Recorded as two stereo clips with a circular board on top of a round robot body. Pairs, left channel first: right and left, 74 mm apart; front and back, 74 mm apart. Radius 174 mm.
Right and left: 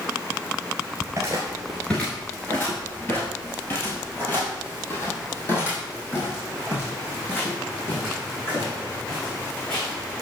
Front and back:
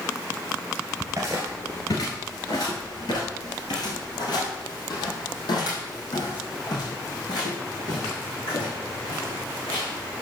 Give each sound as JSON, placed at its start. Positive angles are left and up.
{"t": 1.0, "sound": "footsteps", "azimuth_deg": 140, "distance_m": 1.0}